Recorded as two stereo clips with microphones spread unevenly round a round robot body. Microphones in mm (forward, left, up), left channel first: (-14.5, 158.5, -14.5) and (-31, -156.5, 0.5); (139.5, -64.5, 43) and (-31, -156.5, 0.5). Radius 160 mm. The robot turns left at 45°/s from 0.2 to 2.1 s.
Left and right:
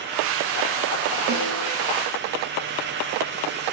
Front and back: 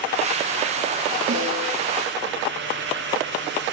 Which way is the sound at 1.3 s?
150° right.